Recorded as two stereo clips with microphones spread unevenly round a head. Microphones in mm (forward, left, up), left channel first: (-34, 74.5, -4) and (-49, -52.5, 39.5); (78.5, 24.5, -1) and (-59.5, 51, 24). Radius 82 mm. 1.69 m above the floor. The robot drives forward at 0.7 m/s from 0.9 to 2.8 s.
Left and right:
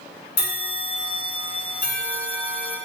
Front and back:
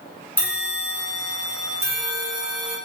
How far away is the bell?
About 1.2 m.